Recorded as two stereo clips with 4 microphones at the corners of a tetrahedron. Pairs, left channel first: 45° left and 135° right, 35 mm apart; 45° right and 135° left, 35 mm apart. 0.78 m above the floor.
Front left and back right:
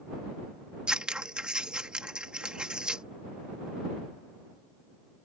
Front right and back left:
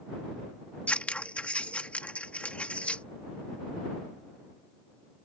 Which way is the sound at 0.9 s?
80° right.